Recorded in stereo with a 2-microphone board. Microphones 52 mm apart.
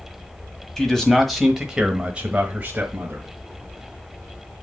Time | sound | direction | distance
0.8 | a man speaking | 10° left (ahead or behind) | 1.6 m